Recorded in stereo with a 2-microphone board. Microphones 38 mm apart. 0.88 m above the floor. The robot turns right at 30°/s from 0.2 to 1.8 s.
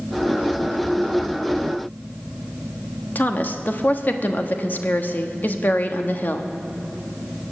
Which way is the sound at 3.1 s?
55° left (ahead or behind).